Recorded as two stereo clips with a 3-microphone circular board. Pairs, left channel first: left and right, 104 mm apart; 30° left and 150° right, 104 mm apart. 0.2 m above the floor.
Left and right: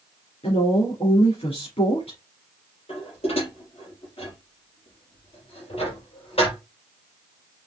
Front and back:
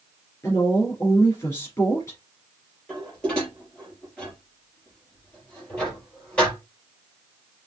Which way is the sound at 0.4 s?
90° left.